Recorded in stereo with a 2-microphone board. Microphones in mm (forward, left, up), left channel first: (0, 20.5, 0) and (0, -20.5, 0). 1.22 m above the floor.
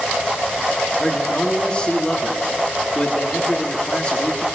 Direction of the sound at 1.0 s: 25° left (ahead or behind).